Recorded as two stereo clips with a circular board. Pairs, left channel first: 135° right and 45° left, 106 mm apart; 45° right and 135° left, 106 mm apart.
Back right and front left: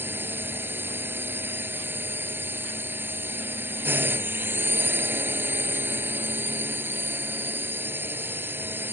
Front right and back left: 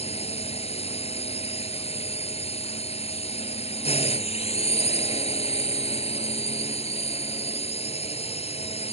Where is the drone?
25° right.